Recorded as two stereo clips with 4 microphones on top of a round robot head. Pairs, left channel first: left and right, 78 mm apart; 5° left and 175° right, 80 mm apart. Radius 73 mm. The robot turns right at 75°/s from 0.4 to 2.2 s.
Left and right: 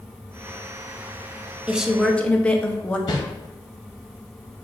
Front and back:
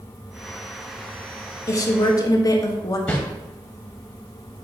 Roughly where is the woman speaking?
Ahead.